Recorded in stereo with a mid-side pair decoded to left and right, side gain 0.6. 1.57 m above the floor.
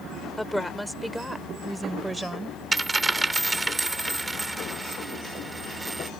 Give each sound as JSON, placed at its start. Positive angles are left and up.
{"t": 0.4, "sound": "a woman speaking", "azimuth_deg": 5}
{"t": 2.7, "sound": "a dropped coin", "azimuth_deg": -15}